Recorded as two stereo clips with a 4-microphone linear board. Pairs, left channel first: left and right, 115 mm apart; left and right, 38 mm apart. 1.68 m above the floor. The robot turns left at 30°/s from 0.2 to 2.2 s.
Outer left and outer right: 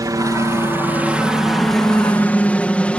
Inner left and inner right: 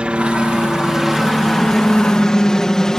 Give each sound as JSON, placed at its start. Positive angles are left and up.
{"t": 0.0, "sound": "a helicopter", "side_deg": -30}